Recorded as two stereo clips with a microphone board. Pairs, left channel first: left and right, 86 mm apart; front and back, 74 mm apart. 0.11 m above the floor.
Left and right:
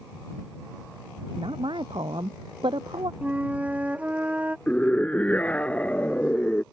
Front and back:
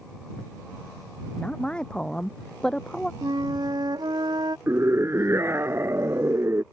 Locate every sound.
1.4 s a woman speaking: 75° right; by 3.1 s 80° right
3.2 s a flute: 165° right
4.7 s a scream: 155° left